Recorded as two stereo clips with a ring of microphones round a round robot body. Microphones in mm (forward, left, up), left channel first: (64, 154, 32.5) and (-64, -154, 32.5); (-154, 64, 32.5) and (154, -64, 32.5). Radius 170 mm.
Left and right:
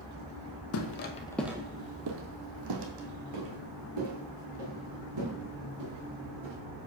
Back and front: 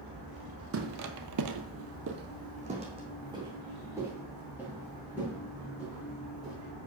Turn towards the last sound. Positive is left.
turn(degrees=-110)